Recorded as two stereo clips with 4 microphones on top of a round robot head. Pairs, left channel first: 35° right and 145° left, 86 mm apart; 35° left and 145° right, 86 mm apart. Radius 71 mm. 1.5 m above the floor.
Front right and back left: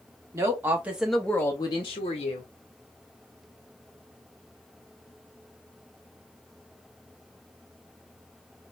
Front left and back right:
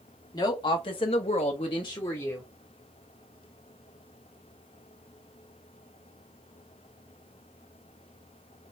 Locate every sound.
0.3 s a woman speaking: 85° left, 0.9 m; by 2.5 s 30° right, 0.8 m